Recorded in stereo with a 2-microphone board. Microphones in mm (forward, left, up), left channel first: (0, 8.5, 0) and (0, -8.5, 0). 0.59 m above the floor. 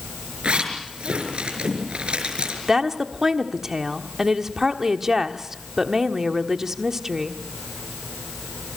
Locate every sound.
0.4 s a zipper: 85° right, 5.5 m
2.7 s a woman speaking: 30° right (ahead or behind), 1.3 m